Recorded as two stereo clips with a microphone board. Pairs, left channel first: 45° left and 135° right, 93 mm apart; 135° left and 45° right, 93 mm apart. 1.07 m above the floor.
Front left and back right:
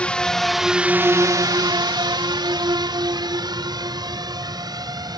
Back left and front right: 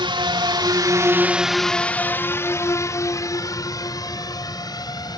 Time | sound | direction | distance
0.0 | a drone | 30° right | ?